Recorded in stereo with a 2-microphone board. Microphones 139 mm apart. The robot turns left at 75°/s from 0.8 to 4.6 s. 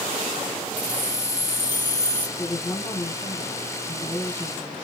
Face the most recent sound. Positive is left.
turn(degrees=0)